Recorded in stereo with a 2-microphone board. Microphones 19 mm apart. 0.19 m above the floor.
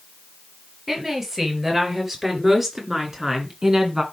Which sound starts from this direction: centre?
A woman speaking, at 0.9 s.